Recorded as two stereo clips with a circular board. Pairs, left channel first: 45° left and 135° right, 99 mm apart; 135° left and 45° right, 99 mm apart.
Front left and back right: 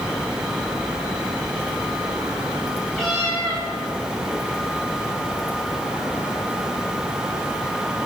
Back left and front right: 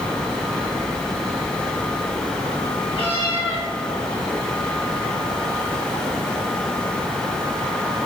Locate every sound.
2.9 s a cat meowing: 130° left, 2.5 m